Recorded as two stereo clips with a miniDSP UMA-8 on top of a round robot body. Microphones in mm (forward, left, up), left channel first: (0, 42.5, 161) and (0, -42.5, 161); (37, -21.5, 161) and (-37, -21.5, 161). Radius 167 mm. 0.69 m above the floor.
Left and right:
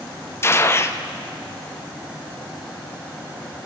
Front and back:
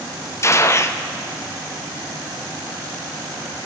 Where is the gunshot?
40° left, 1.2 m.